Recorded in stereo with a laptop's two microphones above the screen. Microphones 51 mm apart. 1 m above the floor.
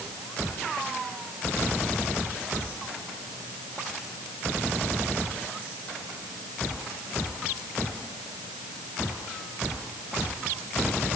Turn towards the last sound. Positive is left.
No sound to turn to.